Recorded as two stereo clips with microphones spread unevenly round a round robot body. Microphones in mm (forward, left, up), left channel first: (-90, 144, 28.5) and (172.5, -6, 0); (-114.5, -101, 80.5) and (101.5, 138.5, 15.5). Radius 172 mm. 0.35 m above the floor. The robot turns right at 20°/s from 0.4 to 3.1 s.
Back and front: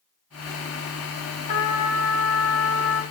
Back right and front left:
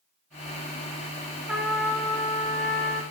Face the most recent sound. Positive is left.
turn(degrees=165)